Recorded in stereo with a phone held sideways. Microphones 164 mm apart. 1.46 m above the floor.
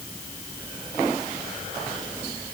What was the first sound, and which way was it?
Only background noise.